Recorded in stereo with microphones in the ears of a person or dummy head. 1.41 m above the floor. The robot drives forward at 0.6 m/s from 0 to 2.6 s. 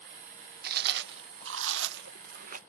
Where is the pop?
No pop in this recording.